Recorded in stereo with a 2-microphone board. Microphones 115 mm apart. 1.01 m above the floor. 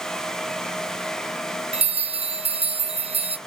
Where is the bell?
65° right (ahead or behind), 0.5 m.